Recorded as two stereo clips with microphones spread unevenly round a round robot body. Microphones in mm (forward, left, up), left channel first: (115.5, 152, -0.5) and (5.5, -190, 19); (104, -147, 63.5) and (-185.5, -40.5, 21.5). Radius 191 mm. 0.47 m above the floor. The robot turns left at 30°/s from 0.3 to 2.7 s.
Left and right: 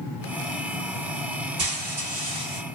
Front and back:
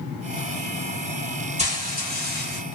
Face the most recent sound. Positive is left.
turn(degrees=170)